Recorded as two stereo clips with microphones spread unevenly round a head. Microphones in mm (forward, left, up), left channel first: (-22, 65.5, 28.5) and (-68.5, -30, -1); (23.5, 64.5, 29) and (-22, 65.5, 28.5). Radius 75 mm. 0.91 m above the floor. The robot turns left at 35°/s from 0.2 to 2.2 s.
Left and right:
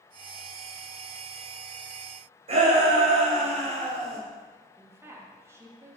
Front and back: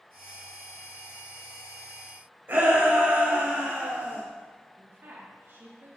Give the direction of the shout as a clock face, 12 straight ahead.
4 o'clock.